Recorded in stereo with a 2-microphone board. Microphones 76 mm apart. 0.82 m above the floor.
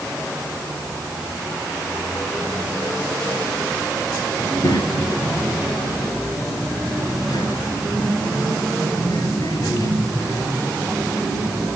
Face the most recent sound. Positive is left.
turn(degrees=45)  # may be behind; listen again after turning